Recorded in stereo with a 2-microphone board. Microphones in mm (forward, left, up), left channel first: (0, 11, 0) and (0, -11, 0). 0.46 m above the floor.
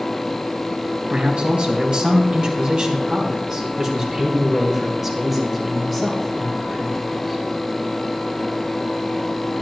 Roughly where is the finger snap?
I don't hear a finger snap.